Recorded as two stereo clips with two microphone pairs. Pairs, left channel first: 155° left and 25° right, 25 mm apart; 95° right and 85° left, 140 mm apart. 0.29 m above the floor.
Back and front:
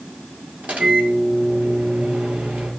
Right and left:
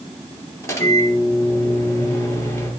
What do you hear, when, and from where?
0.6 s a microwave: 25° right, 4.5 m